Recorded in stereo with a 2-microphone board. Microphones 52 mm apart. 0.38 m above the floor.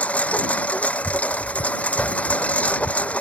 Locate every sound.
0.0 s a lawn mower: 25° left (ahead or behind)